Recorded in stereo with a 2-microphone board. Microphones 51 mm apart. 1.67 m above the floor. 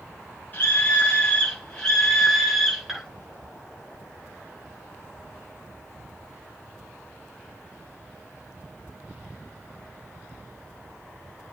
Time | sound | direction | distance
0.5 | a scream | 35° left (ahead or behind) | 2 m